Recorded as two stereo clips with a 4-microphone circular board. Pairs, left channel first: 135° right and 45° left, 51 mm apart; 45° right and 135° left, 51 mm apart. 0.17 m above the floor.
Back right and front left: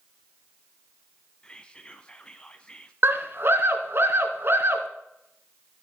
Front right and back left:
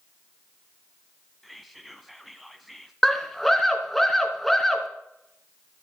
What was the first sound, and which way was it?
Whispering, 135° right.